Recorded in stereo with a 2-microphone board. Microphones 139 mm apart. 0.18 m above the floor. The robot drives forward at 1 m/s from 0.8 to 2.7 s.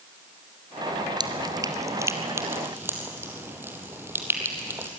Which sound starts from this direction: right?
Dripping, at 1.2 s.